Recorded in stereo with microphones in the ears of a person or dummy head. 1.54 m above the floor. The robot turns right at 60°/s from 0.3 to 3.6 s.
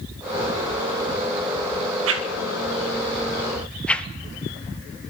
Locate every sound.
2.1 s a whoosh: 85° right, 0.6 m; by 4.1 s 5° left (ahead or behind), 0.6 m